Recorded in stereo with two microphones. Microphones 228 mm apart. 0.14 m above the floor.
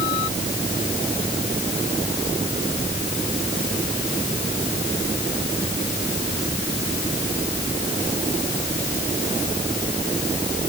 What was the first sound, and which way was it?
Only background noise.